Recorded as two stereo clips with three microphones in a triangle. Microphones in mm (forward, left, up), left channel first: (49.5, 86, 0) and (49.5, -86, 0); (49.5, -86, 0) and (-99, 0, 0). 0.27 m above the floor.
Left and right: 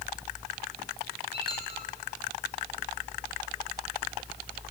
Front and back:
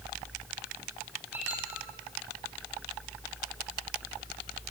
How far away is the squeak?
About 8 m.